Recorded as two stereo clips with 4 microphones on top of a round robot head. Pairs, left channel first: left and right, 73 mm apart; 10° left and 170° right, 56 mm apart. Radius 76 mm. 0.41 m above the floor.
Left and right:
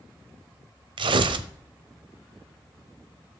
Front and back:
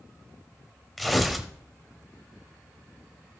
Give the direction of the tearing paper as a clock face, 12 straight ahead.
3 o'clock.